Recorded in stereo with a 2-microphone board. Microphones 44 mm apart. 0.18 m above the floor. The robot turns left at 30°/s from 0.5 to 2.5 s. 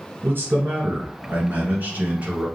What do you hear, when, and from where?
0.2 s a man speaking: 80° right, 1.6 m; by 2.5 s 140° right, 1.6 m